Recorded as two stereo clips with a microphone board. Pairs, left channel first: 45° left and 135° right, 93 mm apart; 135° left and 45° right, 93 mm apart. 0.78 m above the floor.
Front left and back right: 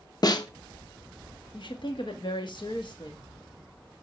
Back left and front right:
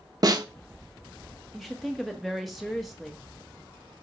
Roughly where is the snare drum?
Ahead.